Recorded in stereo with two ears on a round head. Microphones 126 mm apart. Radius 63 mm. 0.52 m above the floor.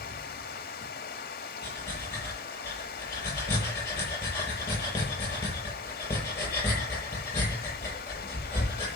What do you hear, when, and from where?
0.0 s running water: 80° left, 1.2 m
1.6 s breathing: 20° left (ahead or behind), 7.5 m